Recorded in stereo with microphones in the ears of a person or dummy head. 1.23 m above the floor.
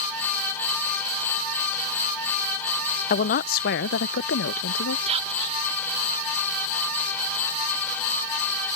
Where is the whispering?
30° right (ahead or behind).